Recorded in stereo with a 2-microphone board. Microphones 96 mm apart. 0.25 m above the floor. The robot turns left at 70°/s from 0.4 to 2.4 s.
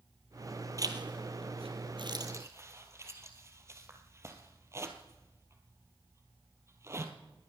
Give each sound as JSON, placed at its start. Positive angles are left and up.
{"t": 0.8, "sound": "a zipper", "side_deg": -35, "distance_m": 1.5}